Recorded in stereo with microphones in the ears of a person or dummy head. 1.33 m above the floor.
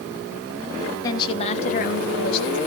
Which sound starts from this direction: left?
A woman speaking, at 1.0 s.